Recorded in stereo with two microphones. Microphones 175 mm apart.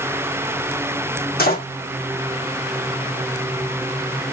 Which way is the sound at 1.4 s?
65° left (ahead or behind).